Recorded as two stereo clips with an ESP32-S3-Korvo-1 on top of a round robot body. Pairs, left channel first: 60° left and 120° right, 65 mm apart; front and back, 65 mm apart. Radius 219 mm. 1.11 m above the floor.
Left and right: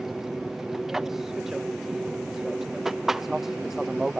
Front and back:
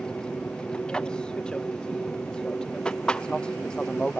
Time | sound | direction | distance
0.0 | an aircraft | 50° right | ?